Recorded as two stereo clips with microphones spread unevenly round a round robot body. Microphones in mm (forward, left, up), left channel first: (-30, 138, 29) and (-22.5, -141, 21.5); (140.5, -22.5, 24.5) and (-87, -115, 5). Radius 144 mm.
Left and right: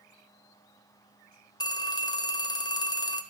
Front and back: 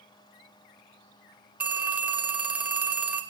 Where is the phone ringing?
145° left, 0.5 m.